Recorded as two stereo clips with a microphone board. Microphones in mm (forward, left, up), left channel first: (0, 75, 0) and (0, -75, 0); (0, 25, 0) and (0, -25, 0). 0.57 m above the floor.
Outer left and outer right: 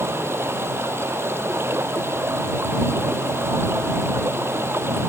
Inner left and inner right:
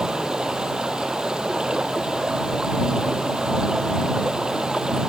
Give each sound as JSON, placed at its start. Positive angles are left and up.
{"t": 0.0, "sound": "running water", "side_deg": -15}